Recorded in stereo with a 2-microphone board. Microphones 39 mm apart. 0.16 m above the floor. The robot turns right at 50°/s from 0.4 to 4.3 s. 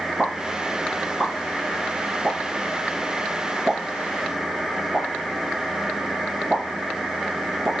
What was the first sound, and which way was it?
A pop, 10° right (ahead or behind).